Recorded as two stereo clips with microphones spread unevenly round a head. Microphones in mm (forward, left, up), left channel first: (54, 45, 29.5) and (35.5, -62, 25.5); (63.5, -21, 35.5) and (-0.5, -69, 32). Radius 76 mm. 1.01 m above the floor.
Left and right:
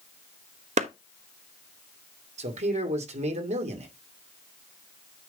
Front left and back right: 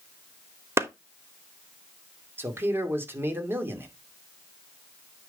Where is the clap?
85° right, 1.1 m.